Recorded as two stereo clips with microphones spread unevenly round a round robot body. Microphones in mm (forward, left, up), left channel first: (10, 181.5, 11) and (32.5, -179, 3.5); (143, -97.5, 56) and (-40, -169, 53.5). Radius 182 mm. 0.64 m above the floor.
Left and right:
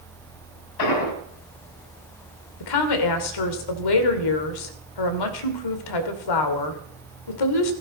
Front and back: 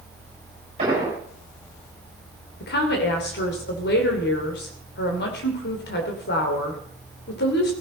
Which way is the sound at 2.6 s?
70° left.